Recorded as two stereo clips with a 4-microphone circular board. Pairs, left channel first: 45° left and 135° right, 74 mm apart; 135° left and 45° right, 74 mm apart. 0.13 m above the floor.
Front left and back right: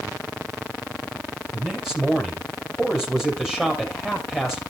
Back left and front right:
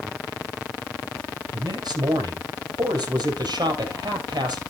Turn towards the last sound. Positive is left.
turn(degrees=-55)